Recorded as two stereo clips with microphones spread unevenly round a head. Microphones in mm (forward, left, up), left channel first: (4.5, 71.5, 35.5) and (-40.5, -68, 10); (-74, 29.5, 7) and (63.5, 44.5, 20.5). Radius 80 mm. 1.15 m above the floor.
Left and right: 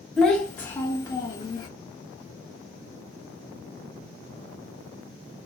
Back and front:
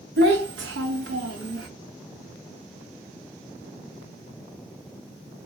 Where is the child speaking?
15° right, 1.3 m; by 1.7 s 5° left, 1.9 m.